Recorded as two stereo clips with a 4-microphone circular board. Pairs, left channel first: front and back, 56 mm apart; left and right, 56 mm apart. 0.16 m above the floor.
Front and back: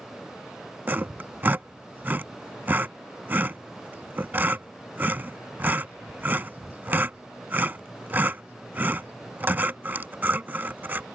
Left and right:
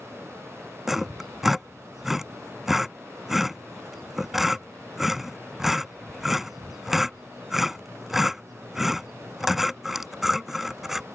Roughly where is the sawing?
Behind.